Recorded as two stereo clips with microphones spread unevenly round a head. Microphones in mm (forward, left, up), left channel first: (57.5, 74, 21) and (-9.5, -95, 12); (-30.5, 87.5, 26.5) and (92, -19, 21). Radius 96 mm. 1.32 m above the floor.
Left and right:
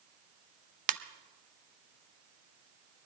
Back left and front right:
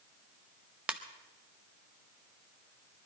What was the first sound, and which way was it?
A ringtone, 125° right.